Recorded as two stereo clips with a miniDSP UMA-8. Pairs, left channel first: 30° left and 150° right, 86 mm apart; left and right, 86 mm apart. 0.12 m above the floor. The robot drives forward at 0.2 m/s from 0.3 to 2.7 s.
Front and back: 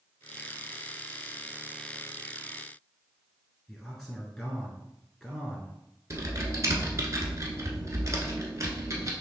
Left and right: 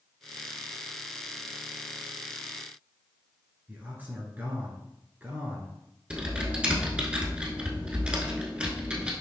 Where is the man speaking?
55° right, 1.6 m.